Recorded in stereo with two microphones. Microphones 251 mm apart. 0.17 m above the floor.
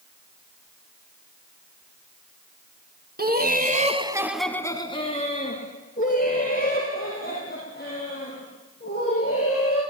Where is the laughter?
40° right (ahead or behind), 1.6 m; by 9.8 s 40° left (ahead or behind), 7.5 m.